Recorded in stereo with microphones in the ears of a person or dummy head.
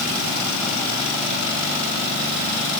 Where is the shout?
I don't hear a shout.